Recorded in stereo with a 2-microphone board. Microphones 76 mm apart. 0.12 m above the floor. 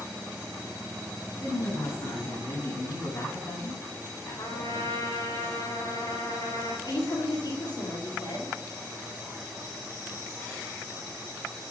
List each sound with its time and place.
1.4 s a man speaking: 70° left (ahead or behind), 5.5 m
4.4 s a trumpet: 65° left (ahead or behind), 4.5 m
6.8 s a woman speaking: 60° left (ahead or behind), 3.5 m